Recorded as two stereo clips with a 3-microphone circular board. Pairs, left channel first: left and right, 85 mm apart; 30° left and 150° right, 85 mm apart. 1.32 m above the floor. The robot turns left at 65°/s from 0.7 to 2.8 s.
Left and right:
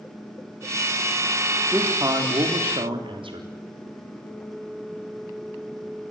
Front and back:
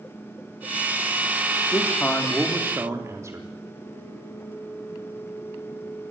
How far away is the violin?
No violin in this recording.